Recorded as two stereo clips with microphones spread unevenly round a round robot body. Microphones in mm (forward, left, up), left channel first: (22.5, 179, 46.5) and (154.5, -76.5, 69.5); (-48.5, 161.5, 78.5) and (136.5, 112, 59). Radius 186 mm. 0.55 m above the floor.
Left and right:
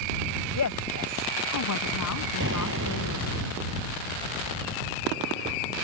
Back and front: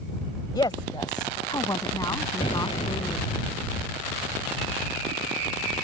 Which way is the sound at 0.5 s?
95° left.